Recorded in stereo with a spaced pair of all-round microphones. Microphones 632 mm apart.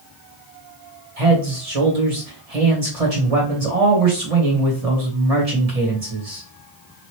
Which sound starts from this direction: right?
A man speaking, at 1.2 s.